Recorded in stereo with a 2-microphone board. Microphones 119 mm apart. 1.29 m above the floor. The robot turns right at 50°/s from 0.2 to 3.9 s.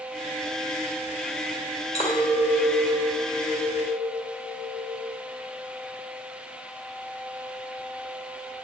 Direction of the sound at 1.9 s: 120° left.